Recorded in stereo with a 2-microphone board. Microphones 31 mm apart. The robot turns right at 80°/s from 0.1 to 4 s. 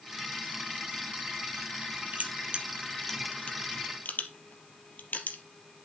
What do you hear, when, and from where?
2.1 s crushing: 60° right (ahead or behind), 3 m; by 5.4 s 70° left (ahead or behind), 3 m